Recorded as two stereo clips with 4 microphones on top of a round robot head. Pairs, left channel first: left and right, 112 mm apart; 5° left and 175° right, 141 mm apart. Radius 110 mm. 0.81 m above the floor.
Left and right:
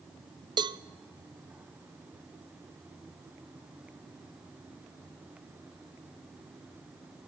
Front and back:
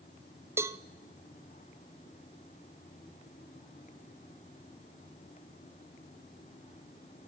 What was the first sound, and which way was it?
A cowbell, 110° right.